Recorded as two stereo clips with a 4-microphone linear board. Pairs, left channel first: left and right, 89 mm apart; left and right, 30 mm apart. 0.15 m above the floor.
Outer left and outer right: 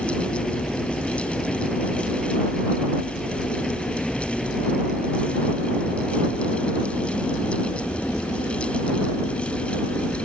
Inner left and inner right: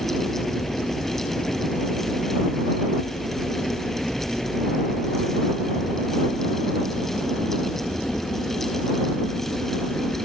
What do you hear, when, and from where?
0.0 s a helicopter: 5° left (ahead or behind)